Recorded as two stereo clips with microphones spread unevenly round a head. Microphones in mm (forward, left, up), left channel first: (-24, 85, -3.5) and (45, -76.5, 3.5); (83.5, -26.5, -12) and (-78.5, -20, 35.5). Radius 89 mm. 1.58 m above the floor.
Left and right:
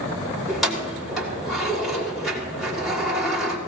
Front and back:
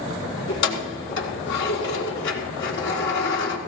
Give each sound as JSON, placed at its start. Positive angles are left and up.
{"t": 0.5, "sound": "keys jangling", "azimuth_deg": 25, "distance_m": 3.5}